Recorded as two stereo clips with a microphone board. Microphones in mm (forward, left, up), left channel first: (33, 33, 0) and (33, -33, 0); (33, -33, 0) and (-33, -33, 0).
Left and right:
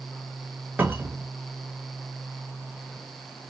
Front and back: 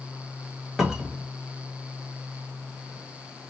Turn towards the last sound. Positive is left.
turn(degrees=-95)